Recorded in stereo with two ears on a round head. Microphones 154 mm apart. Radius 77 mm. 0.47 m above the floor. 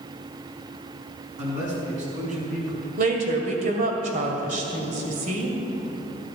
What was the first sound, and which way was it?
A man speaking, 45° right (ahead or behind).